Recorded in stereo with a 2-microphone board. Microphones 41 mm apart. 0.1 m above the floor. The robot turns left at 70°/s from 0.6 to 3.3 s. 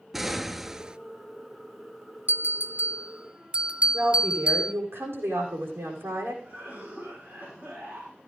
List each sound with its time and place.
0.1 s an explosion: 5° right (ahead or behind), 0.5 m; by 1.0 s 25° right (ahead or behind), 0.5 m
2.3 s a bell: 70° right, 0.9 m; by 4.7 s 140° right, 0.9 m
3.9 s a woman speaking: 75° right (ahead or behind), 6.5 m
6.4 s a cough: 40° right (ahead or behind), 5 m